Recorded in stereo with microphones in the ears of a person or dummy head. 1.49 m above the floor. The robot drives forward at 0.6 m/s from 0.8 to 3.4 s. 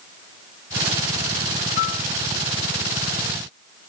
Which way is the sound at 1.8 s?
50° left (ahead or behind).